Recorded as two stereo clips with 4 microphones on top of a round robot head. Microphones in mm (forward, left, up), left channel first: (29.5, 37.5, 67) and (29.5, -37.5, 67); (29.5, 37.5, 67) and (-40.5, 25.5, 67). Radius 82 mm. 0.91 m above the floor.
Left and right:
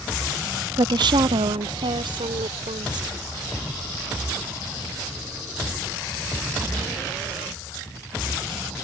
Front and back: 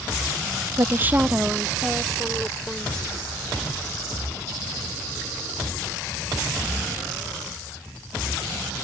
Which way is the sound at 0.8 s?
120° right.